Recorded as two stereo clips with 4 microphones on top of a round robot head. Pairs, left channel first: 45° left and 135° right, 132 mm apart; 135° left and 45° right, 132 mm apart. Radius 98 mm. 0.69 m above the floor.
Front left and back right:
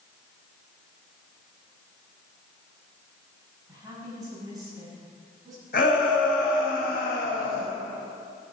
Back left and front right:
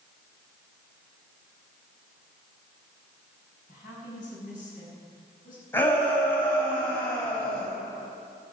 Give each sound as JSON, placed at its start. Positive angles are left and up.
{"t": 3.7, "sound": "a woman speaking", "azimuth_deg": 160, "distance_m": 7.0}
{"t": 5.7, "sound": "a shout", "azimuth_deg": 65, "distance_m": 4.0}